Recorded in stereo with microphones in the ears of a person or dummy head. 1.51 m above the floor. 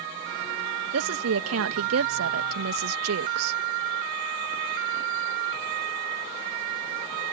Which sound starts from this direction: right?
A woman speaking, at 0.9 s.